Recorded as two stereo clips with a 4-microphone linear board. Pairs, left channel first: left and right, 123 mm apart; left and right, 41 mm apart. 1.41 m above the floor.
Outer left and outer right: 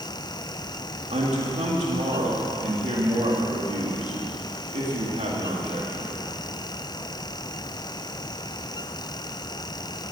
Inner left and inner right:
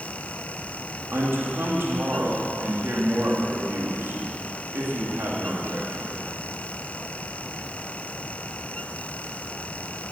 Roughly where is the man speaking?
Right.